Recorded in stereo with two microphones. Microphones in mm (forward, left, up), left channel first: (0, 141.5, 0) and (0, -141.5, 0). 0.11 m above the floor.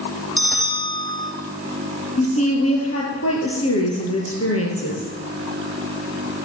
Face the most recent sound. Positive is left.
turn(degrees=55)  # may be behind; listen again after turning